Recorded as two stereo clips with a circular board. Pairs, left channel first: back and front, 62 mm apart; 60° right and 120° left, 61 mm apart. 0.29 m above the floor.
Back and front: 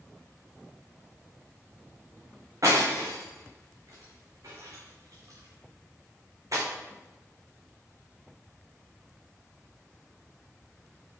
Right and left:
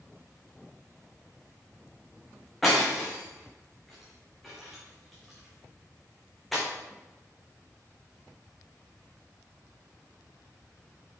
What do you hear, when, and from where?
2.6 s breaking glass: 25° left, 3.5 m